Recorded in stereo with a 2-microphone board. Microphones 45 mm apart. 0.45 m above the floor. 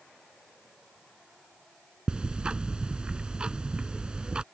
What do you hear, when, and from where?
2.1 s ticking: 20° right (ahead or behind)